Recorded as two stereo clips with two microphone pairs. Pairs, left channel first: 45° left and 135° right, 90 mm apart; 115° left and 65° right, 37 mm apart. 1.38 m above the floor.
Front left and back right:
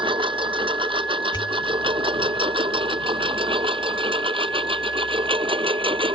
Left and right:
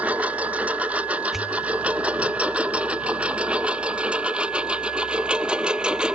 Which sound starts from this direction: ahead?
A pop, at 1.3 s.